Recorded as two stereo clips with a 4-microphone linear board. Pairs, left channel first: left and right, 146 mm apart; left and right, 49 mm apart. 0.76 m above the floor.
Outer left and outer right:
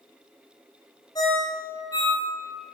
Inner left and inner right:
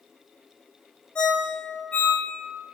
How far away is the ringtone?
About 1.4 m.